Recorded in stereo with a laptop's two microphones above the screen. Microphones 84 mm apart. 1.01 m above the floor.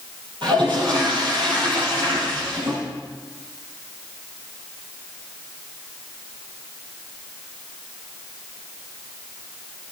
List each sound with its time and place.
0.4 s a toilet flushing: 70° right (ahead or behind), 7 m